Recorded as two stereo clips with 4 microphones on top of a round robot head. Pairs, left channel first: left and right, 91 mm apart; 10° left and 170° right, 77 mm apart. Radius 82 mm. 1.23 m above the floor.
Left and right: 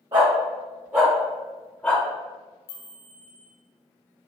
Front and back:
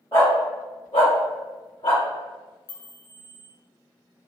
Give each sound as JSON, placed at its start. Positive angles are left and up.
{"t": 0.1, "sound": "a dog barking", "azimuth_deg": -55, "distance_m": 1.4}
{"t": 2.7, "sound": "a chime", "azimuth_deg": 80, "distance_m": 1.6}